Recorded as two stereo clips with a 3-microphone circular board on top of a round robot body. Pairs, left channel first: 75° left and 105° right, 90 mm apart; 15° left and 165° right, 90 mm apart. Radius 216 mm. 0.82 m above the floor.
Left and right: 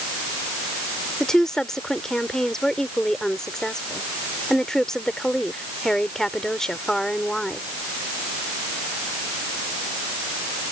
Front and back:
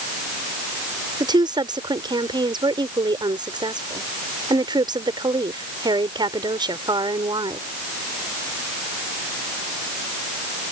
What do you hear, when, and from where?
1.2 s a woman speaking: 160° left